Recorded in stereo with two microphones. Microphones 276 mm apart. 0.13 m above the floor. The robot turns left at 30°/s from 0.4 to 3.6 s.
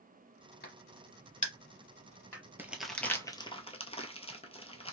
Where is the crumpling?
5° right (ahead or behind), 0.7 m; by 4.9 s 20° left (ahead or behind), 0.7 m.